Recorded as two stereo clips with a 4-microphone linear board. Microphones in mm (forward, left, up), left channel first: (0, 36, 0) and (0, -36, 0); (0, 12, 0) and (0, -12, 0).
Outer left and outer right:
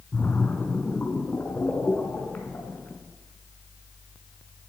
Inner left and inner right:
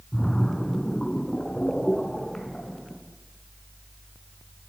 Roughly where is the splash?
Left.